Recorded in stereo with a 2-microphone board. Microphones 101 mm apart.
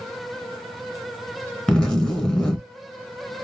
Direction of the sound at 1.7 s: 5° left (ahead or behind).